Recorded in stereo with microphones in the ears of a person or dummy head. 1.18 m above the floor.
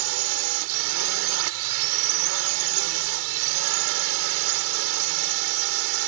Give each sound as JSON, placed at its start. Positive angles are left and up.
{"t": 0.0, "sound": "a drone", "side_deg": -70}